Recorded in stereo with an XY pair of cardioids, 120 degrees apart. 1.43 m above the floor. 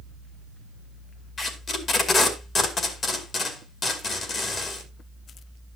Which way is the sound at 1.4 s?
40° left.